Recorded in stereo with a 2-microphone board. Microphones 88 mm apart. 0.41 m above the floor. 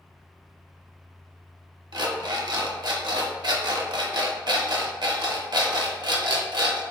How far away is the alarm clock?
About 0.6 m.